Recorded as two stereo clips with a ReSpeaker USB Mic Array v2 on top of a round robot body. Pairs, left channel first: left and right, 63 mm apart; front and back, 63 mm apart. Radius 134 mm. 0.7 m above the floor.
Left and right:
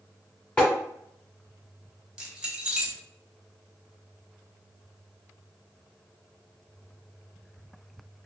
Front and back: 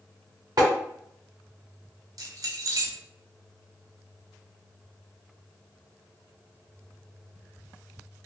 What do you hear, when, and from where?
0.6 s tapping: 160° left, 1.9 m
2.2 s keys jangling: 165° right, 1.3 m